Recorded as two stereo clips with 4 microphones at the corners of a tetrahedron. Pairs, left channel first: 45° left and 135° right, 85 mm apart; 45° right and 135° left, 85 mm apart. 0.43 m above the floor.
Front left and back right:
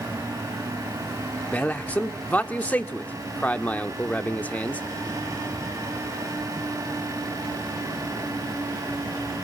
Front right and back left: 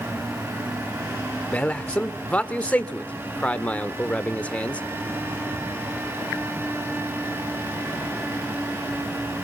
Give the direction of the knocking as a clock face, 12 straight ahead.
I don't hear knocking.